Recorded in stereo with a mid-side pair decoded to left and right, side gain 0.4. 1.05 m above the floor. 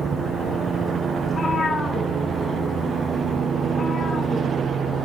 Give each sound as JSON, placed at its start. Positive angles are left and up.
{"t": 1.2, "sound": "a cat meowing", "azimuth_deg": 50, "distance_m": 5.0}